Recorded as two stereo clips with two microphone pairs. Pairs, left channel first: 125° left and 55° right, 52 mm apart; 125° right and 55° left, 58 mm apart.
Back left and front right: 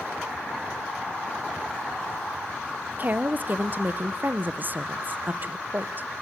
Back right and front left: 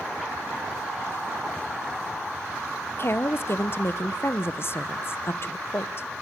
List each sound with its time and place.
3.0 s a woman speaking: 95° right, 0.7 m